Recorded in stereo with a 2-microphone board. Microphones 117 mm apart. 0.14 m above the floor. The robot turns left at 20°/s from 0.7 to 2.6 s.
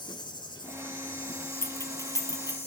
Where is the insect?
135° left, 2.0 m; by 2.7 s 95° left, 2.0 m.